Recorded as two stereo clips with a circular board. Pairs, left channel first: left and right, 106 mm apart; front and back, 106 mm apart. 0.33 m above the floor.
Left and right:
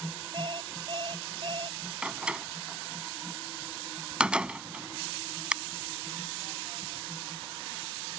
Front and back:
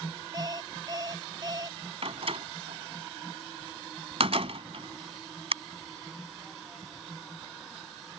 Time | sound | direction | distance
0.3 | an alarm clock | 130° right | ?
2.0 | a door slam | 170° right | ?